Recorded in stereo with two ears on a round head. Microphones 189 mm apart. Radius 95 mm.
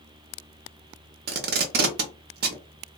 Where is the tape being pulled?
55° right (ahead or behind), 0.7 m.